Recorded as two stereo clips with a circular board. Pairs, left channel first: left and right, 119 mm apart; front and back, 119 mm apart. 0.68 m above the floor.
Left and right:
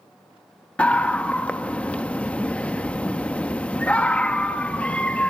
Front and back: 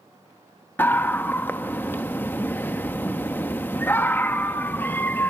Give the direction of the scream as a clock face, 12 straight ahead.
11 o'clock.